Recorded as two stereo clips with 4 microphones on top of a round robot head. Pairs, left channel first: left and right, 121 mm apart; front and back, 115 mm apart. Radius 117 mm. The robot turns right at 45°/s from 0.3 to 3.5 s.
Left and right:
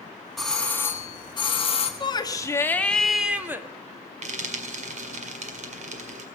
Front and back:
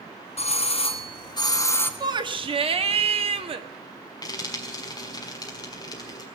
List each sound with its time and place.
0.4 s a doorbell: straight ahead, 1.6 m; by 1.9 s 70° left, 1.6 m
2.0 s a shout: 130° left, 1.7 m; by 3.7 s 160° right, 1.7 m
4.2 s frying: 65° right, 1.8 m